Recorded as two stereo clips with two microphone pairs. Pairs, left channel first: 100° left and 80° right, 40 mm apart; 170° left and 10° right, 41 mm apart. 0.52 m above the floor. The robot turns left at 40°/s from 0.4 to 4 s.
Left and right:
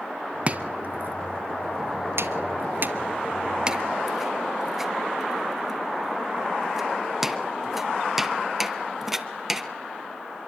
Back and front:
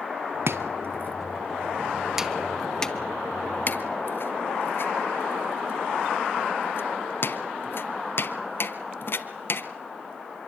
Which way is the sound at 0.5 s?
25° right.